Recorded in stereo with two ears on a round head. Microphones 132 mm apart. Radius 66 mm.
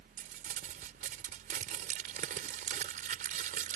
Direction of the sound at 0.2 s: 55° right (ahead or behind).